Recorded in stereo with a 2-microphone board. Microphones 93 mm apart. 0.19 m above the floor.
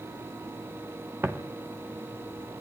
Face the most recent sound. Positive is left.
turn(degrees=-30)  # may be behind; listen again after turning